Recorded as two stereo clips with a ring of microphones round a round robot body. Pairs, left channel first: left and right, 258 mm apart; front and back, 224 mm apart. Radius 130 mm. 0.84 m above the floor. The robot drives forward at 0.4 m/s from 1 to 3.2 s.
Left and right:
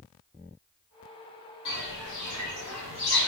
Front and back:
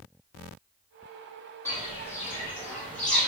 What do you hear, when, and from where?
1.6 s footsteps: 75° left, 1.7 m; by 3.3 s 80° left, 1.1 m